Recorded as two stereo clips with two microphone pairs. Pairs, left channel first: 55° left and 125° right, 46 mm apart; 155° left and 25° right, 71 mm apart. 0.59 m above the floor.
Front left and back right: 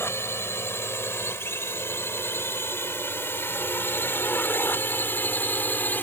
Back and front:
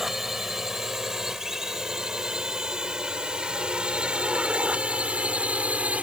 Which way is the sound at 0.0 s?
60° left.